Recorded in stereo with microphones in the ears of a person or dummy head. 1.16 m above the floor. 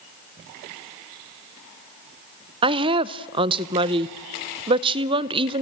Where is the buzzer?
No buzzer in this recording.